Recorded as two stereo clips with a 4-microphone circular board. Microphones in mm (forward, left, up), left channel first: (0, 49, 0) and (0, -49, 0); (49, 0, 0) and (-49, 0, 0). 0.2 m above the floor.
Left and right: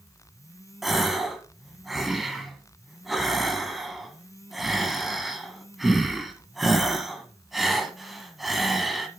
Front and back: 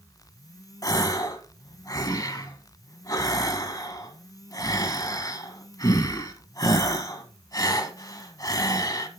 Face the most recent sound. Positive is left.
turn(degrees=-5)